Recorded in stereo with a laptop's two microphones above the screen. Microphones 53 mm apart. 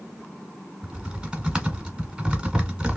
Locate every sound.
0.8 s typing on a keyboard: 20° right (ahead or behind), 1.5 m